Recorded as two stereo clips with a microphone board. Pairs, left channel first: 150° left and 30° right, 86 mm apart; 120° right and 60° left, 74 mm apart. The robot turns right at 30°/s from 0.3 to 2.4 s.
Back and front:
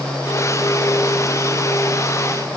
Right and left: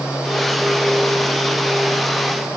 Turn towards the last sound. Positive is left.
No sound to turn to.